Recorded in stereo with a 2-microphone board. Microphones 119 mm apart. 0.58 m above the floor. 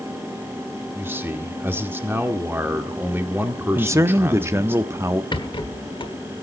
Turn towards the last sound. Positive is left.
turn(degrees=45)  # may be behind; listen again after turning